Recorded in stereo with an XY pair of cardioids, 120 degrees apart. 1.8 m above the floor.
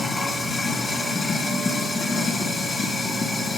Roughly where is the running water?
Ahead left.